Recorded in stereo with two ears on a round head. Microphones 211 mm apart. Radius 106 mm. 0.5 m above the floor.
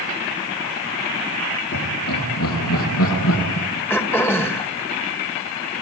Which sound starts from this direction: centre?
Throat clearing, at 3.9 s.